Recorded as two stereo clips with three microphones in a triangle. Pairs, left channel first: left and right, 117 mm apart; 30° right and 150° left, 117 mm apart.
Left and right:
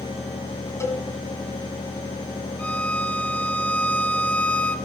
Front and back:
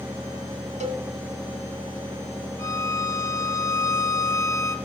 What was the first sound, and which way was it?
A cowbell, 155° left.